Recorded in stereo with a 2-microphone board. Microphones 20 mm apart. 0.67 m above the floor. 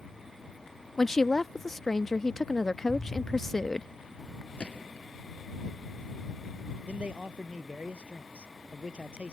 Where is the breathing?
I don't hear breathing.